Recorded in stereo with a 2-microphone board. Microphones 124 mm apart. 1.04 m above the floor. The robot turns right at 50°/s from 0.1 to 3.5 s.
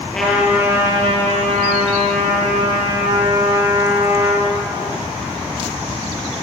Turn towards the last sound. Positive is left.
turn(degrees=-15)